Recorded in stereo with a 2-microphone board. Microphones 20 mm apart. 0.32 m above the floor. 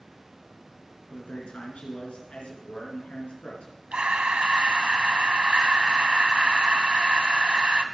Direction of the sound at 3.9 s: 65° right (ahead or behind).